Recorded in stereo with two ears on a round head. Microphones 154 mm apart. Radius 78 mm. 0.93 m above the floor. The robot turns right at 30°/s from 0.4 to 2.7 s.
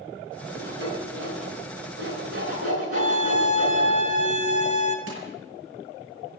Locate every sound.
0.6 s sawing: 70° right (ahead or behind), 10 m; by 3.9 s 45° right (ahead or behind), 10 m
2.9 s a scream: 45° right (ahead or behind), 5.5 m
5.1 s crushing: 85° right, 8.5 m